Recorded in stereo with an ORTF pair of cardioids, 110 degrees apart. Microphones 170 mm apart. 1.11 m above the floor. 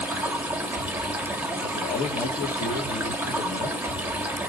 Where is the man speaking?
50° left, 1.4 m.